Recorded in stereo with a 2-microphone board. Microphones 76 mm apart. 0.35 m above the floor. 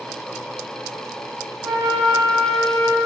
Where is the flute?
40° right (ahead or behind), 4 m.